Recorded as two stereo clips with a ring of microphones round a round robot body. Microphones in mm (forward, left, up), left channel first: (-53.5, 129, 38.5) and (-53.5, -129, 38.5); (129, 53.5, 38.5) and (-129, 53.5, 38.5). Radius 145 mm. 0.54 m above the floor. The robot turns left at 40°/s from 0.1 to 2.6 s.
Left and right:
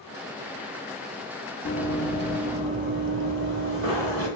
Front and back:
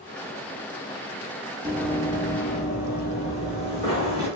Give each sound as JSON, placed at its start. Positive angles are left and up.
{"t": 1.6, "sound": "running footsteps", "azimuth_deg": 110, "distance_m": 0.7}